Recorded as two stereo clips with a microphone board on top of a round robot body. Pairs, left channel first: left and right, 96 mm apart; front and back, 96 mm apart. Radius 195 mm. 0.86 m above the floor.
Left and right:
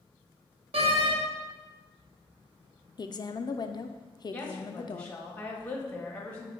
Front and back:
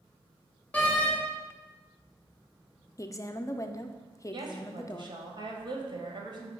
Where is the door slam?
75° right, 0.8 m.